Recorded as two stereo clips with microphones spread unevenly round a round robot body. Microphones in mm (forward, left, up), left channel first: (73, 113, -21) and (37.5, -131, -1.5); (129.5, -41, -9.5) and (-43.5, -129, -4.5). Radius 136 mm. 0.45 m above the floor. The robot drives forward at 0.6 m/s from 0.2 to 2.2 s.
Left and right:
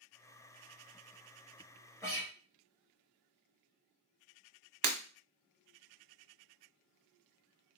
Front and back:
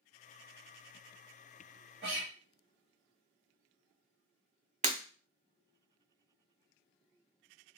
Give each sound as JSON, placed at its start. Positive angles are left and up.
{"t": 2.0, "sound": "a guitar", "azimuth_deg": 160, "distance_m": 1.2}
{"t": 4.8, "sound": "breaking glass", "azimuth_deg": -100, "distance_m": 0.8}